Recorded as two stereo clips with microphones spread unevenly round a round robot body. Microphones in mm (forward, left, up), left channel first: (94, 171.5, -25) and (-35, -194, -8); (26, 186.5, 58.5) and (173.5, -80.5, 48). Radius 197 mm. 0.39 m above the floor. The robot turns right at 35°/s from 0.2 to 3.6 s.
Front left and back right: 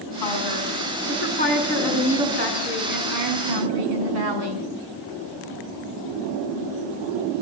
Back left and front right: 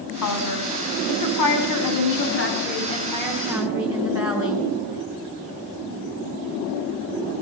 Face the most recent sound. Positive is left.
turn(degrees=-140)